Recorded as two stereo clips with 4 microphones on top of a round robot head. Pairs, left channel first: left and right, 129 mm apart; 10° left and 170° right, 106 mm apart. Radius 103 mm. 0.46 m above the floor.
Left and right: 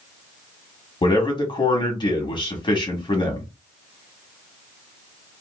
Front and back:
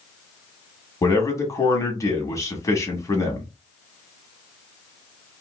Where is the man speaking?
55° left, 1.6 m.